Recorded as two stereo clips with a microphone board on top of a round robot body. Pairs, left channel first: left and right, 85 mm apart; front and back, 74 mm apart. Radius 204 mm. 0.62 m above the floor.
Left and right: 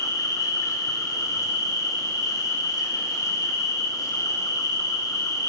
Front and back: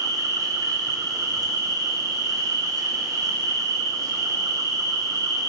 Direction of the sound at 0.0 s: 140° left.